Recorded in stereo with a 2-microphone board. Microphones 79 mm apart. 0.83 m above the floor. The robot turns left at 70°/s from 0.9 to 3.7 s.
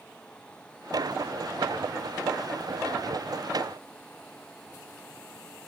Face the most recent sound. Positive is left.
No sound to turn to.